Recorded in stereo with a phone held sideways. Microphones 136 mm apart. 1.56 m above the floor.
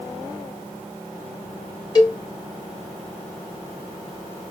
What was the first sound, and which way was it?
A cowbell, 30° left (ahead or behind).